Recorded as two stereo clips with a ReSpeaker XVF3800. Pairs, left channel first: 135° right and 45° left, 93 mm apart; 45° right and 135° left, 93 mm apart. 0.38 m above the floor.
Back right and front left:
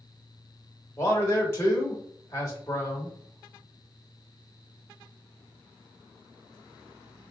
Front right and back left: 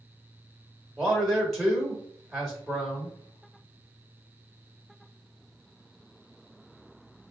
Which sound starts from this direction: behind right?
A man speaking, at 1.0 s.